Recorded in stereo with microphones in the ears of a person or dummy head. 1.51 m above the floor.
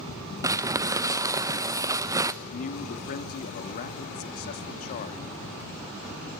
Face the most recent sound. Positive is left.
turn(degrees=50)  # may be behind; listen again after turning